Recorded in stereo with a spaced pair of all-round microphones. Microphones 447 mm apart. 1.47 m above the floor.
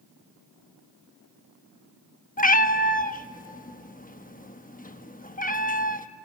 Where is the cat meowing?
20° left (ahead or behind), 0.9 m.